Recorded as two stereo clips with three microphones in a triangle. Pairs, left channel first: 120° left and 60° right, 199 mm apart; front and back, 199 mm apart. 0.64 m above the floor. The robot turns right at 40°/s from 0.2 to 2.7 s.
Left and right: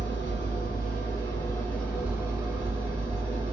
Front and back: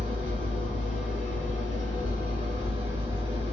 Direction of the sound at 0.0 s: 140° left.